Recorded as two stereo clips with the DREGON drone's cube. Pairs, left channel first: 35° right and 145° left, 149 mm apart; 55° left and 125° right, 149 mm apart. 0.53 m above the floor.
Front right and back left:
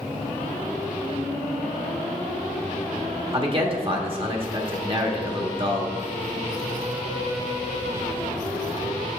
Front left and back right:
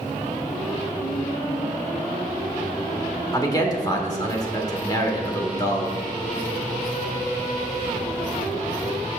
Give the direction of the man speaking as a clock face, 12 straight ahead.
8 o'clock.